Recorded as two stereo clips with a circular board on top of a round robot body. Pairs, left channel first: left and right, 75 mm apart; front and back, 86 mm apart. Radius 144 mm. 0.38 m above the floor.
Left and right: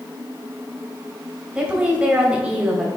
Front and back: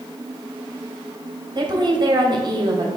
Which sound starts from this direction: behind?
A woman speaking, at 1.6 s.